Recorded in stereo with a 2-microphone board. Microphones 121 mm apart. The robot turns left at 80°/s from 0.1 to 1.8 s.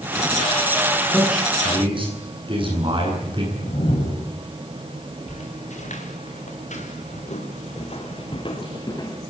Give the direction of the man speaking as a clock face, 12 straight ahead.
12 o'clock.